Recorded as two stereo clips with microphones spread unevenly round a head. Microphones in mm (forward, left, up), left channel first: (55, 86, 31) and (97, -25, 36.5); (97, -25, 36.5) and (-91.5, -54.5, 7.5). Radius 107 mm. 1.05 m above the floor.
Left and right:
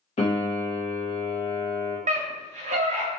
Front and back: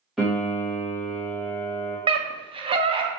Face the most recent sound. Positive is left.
turn(degrees=-110)